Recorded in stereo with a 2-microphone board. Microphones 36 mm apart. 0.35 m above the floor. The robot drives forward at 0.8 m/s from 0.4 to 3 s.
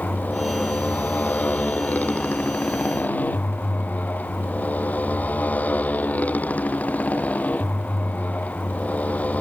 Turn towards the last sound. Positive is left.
turn(degrees=45)  # may be behind; listen again after turning